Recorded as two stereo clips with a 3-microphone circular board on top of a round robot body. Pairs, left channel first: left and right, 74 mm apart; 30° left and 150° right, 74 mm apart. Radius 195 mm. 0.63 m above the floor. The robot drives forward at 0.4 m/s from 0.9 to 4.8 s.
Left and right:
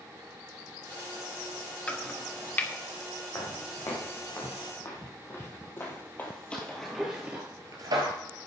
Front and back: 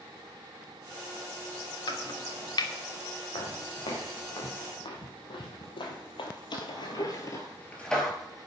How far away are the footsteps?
About 3 m.